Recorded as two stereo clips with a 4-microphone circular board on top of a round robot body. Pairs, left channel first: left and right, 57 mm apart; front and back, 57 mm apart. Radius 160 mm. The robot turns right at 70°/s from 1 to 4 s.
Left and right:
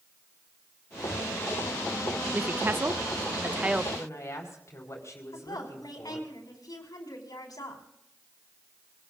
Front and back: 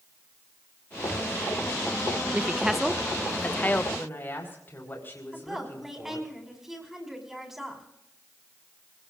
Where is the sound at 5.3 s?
95° left, 5 m.